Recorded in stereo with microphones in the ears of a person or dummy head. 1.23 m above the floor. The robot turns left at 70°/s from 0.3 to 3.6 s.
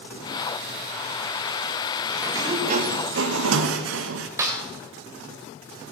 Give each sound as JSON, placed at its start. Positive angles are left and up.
{"t": 2.2, "sound": "a sliding door", "azimuth_deg": -10, "distance_m": 1.0}
{"t": 4.4, "sound": "a snare drum", "side_deg": -15, "distance_m": 1.5}